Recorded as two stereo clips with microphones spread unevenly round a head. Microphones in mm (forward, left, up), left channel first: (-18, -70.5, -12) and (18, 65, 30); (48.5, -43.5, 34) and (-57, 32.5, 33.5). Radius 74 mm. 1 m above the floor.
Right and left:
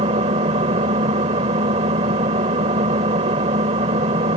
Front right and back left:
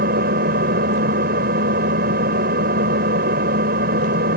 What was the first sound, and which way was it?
An engine running, 125° left.